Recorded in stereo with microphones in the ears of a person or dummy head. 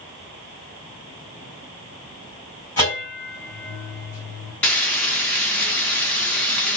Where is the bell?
10° left (ahead or behind), 1.5 m.